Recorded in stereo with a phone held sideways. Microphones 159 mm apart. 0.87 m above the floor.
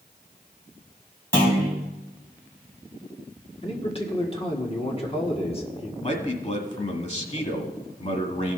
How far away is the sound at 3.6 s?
About 1.7 m.